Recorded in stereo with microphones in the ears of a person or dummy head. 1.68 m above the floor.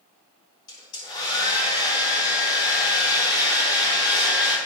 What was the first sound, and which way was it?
A hair dryer, 30° left (ahead or behind).